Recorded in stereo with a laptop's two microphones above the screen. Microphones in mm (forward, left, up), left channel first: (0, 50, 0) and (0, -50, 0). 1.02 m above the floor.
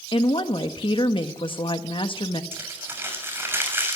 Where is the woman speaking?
55° left (ahead or behind), 1.3 m.